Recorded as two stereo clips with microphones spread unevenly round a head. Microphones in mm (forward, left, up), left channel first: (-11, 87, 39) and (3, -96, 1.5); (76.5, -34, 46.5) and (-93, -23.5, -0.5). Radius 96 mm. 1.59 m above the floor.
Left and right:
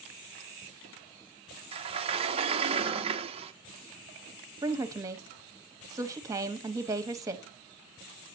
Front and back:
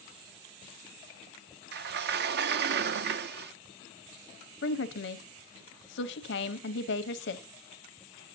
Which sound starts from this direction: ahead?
A woman speaking, at 4.6 s.